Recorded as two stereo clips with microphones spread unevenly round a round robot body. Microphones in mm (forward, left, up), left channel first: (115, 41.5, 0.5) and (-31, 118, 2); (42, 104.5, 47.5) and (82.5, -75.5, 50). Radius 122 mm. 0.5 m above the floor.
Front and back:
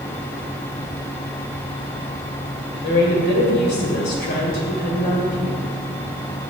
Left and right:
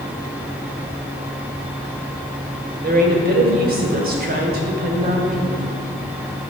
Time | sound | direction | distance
2.8 | a woman speaking | 45° right | 2 m